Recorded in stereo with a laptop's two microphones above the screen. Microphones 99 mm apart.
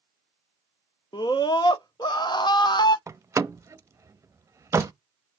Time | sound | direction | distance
1.1 | a scream | 45° left (ahead or behind) | 0.7 m
3.1 | a door slam | 30° right (ahead or behind) | 0.6 m